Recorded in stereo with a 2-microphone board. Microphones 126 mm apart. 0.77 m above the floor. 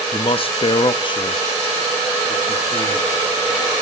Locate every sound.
0.1 s a man speaking: 45° left (ahead or behind), 0.6 m; by 3.2 s 25° left (ahead or behind), 2 m